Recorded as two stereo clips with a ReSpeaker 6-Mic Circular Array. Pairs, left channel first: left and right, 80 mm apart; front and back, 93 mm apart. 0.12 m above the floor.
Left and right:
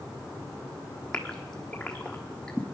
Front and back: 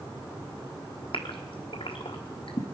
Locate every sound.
1.1 s a gasp: 10° left, 1.1 m